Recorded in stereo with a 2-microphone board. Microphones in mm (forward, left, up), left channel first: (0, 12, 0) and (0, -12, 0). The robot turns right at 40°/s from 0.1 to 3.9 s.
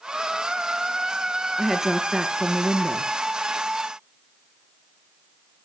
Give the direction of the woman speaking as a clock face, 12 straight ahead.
6 o'clock.